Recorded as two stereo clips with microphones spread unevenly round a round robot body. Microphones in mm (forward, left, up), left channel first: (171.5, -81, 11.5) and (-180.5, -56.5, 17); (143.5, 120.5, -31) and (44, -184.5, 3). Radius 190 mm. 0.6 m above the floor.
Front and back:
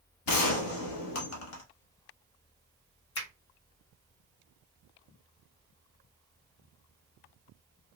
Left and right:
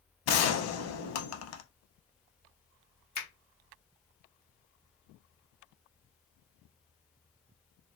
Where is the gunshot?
35° left, 0.6 m.